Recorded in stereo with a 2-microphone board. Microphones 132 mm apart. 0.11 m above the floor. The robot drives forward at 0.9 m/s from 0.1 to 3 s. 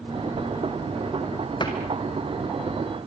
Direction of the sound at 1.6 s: 35° left (ahead or behind).